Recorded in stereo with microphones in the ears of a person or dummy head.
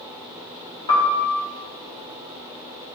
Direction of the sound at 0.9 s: 25° left (ahead or behind).